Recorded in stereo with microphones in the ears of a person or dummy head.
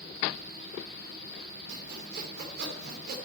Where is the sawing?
70° right (ahead or behind), 2.5 m.